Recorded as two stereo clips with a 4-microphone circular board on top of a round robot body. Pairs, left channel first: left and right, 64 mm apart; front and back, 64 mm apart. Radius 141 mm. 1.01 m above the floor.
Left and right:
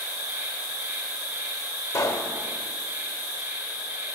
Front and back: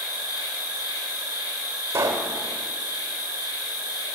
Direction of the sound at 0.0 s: 25° right.